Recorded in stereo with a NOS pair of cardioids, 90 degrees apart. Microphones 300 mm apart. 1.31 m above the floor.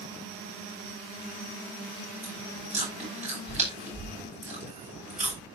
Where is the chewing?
25° right, 10 m.